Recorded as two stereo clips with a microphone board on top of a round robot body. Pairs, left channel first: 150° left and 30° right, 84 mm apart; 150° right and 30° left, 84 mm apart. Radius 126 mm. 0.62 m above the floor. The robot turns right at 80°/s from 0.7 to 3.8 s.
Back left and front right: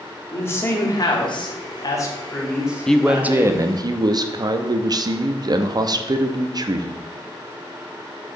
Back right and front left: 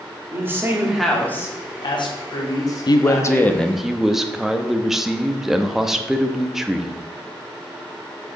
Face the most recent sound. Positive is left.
turn(degrees=-55)